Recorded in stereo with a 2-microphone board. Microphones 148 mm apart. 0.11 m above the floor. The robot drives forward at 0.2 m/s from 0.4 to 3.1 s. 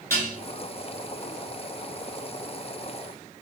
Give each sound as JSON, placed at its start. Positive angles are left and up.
{"t": 0.1, "sound": "dishes clattering", "side_deg": 20, "distance_m": 1.0}